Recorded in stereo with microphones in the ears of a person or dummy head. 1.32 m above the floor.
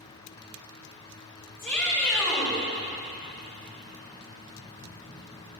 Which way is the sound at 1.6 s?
10° left (ahead or behind).